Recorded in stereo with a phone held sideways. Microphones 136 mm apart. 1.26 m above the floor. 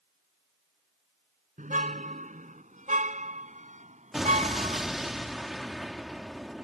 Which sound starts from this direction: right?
A car horn, at 1.6 s.